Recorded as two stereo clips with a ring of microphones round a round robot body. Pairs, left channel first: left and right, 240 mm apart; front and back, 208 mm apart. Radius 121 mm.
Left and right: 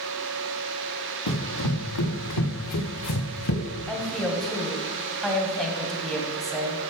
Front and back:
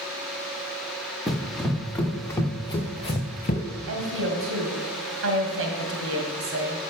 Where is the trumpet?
No trumpet in this recording.